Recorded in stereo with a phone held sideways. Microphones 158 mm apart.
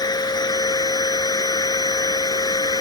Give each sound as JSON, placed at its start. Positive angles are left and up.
{"t": 0.0, "sound": "a machine running", "side_deg": 25}